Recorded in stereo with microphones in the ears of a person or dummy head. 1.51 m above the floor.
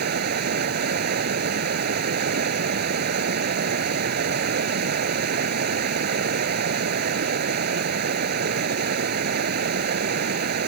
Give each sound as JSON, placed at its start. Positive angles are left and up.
{"t": 0.0, "sound": "running water", "side_deg": -50}